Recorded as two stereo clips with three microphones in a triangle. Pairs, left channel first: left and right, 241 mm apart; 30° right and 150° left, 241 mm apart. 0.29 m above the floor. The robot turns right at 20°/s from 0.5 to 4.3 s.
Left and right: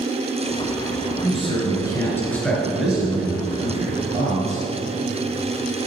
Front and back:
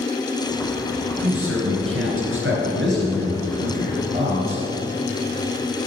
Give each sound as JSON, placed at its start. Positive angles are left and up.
{"t": 1.2, "sound": "a man speaking", "azimuth_deg": 150, "distance_m": 3.5}